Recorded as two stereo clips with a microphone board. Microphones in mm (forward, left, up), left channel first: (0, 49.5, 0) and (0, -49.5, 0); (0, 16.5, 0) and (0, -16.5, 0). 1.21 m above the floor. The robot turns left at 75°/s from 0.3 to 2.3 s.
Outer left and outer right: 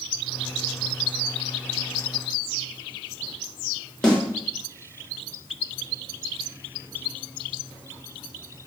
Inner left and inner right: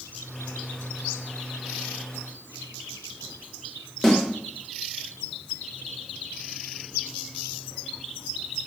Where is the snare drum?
10° left (ahead or behind), 1.4 m.